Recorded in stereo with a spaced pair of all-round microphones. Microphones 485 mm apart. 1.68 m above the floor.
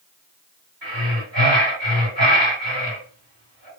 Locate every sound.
0.8 s breathing: 45° right (ahead or behind), 1.7 m